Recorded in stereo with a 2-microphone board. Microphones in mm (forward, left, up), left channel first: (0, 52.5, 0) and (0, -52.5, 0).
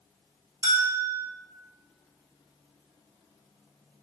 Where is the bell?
40° right (ahead or behind), 0.6 m.